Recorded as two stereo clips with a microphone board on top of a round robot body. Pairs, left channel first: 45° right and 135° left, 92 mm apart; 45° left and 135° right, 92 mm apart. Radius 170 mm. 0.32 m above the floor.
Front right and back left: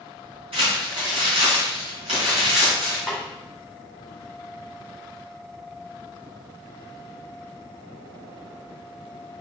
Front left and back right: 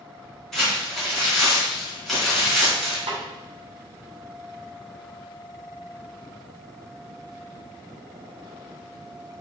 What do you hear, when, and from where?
0.5 s crumpling: 130° left, 4 m
3.1 s a snare drum: 135° right, 2.5 m